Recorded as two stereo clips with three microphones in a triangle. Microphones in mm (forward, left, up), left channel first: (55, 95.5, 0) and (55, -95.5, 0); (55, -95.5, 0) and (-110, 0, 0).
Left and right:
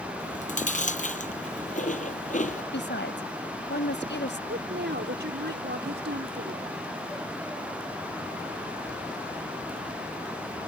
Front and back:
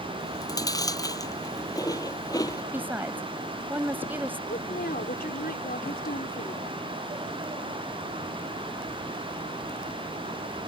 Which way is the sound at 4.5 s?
70° right.